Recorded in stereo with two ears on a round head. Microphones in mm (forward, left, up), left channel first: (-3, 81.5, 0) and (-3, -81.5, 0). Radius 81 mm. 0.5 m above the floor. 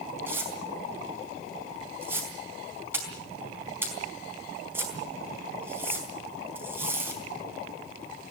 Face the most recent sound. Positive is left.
turn(degrees=-15)  # may be behind; listen again after turning